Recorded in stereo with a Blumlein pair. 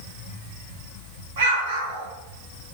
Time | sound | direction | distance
1.4 | an explosion | 60° right | 5 m